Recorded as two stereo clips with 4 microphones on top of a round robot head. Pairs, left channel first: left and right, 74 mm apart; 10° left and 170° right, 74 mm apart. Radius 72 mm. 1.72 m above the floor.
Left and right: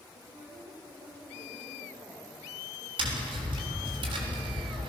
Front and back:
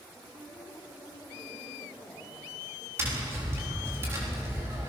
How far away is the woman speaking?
About 5.5 m.